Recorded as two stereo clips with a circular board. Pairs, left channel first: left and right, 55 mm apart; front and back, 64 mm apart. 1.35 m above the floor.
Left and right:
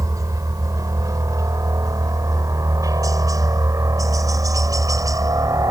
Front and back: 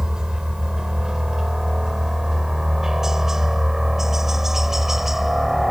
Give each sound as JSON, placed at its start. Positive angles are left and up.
{"t": 0.0, "sound": "a helicopter", "azimuth_deg": -100}